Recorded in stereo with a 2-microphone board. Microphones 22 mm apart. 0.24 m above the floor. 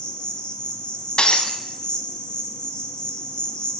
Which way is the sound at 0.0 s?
55° left (ahead or behind).